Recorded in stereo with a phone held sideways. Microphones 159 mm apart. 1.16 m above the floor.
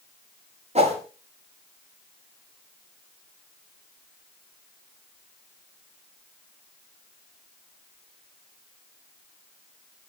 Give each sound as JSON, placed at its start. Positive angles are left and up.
{"t": 0.8, "sound": "a whoosh", "side_deg": -45, "distance_m": 6.0}